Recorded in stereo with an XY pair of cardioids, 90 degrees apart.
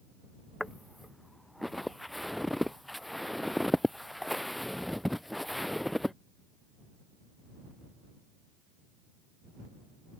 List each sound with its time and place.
0.6 s footsteps: 5° left